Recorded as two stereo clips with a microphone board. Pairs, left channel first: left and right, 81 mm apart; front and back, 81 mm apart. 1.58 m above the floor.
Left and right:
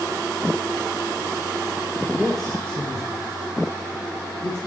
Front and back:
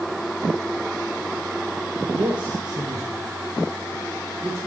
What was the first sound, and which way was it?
A man speaking, 170° right.